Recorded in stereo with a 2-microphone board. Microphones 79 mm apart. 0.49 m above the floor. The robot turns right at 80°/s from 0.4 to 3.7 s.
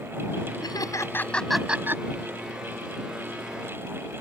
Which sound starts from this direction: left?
Laughter, at 0.6 s.